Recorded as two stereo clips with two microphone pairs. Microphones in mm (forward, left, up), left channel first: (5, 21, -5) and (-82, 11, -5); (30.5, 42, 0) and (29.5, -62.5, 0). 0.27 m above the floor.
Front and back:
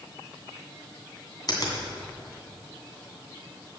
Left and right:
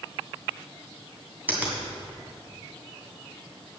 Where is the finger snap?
20° right, 2.5 m.